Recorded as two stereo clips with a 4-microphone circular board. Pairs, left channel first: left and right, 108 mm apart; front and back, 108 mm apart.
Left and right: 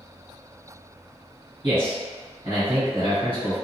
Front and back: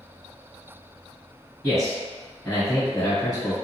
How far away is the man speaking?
About 1.9 m.